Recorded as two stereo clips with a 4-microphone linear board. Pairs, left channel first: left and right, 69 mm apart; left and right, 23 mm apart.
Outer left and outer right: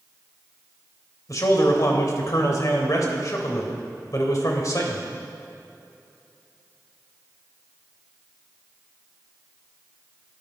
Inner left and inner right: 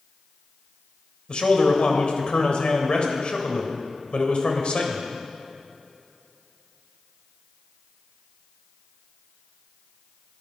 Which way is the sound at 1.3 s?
50° left (ahead or behind).